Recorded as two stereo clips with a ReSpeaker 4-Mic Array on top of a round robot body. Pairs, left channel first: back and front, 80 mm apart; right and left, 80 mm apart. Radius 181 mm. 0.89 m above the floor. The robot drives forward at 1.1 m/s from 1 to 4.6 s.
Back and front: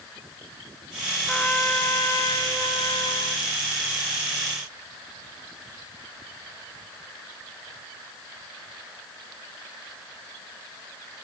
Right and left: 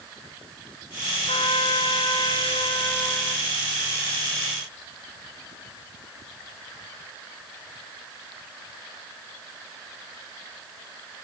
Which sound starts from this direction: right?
A trumpet, at 1.3 s.